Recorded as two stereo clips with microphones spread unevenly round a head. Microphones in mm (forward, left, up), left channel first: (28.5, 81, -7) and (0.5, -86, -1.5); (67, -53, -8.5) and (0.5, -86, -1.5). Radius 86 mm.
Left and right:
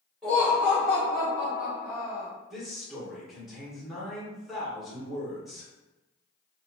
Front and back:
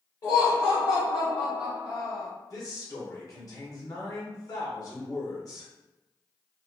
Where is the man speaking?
10° right, 1.1 m.